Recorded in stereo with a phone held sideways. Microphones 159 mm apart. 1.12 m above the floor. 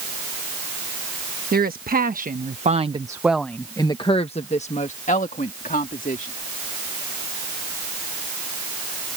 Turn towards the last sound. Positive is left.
turn(degrees=60)  # may be behind; listen again after turning